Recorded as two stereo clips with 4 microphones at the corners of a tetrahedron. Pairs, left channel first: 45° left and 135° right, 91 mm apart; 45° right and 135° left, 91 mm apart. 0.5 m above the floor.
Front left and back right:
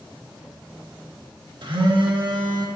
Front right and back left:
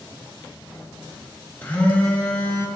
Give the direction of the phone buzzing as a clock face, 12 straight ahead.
4 o'clock.